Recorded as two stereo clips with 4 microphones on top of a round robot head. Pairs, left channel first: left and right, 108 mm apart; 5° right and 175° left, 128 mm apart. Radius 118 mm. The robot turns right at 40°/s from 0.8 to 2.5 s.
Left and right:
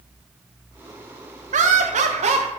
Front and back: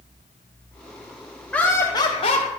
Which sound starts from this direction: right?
Laughter, at 1.5 s.